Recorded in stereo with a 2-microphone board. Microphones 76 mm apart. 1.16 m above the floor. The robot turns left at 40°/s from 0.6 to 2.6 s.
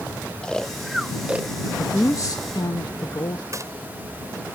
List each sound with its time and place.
0.4 s snoring: 10° left (ahead or behind); by 1.7 s 30° right (ahead or behind)
1.8 s a woman speaking: 150° left; by 3.4 s 120° left
3.5 s a gunshot: 45° right (ahead or behind)